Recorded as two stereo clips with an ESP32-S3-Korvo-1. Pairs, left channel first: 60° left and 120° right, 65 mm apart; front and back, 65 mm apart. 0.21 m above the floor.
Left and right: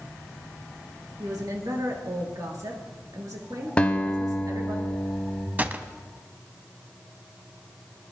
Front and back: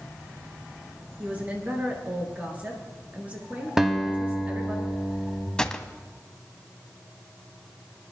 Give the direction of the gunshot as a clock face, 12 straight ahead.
2 o'clock.